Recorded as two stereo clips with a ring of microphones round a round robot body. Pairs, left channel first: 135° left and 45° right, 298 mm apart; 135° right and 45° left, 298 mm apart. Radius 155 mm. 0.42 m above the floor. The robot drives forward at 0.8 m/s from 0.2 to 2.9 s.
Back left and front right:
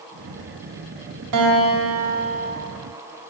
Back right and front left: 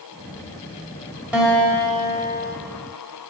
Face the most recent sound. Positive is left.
turn(degrees=-110)